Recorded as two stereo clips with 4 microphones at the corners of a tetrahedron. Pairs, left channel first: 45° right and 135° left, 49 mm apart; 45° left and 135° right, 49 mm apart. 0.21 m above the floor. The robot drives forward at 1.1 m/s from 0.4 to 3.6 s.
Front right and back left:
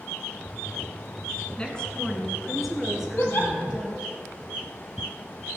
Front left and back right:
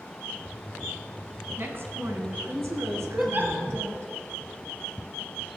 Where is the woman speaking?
110° right, 2 m; by 4.1 s 150° right, 3.5 m.